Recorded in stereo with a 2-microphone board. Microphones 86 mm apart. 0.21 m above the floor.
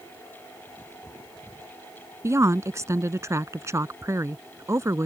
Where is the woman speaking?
35° right (ahead or behind).